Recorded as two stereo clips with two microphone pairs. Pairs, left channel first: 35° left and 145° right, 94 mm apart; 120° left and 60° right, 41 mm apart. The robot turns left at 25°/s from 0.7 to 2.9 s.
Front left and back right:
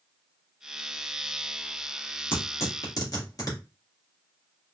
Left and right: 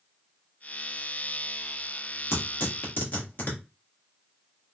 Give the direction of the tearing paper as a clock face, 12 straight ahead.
9 o'clock.